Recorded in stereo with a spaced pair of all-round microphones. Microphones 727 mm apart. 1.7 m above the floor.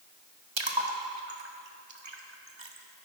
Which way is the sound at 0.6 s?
40° right (ahead or behind).